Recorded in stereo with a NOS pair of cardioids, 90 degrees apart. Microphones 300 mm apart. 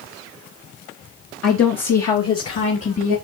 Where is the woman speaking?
65° left, 2 m; by 3.2 s 40° left, 3.5 m.